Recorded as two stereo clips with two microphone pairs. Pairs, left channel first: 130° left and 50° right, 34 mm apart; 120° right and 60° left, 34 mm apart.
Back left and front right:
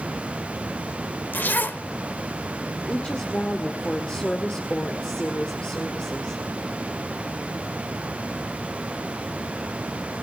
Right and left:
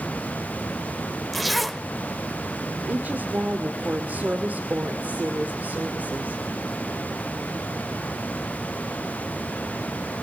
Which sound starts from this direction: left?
A woman speaking, at 2.9 s.